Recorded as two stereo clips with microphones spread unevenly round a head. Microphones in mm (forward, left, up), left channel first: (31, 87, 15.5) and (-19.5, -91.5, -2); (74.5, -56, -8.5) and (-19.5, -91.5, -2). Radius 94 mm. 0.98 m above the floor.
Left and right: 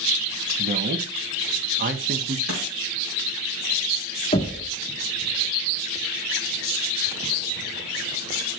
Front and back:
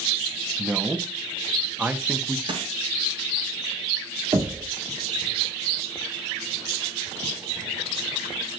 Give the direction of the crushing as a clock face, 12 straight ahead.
4 o'clock.